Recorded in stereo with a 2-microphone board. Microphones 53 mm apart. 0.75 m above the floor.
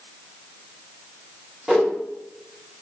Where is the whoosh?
10° right (ahead or behind), 0.7 m.